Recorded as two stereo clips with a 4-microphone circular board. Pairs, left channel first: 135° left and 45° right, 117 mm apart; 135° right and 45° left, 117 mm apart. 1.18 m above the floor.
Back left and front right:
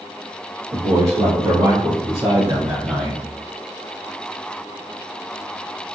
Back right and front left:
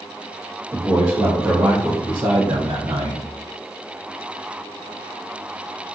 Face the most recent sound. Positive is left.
turn(degrees=45)